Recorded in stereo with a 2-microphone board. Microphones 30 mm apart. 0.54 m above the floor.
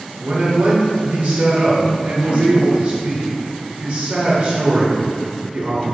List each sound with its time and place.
0.2 s a man speaking: 55° right (ahead or behind), 2 m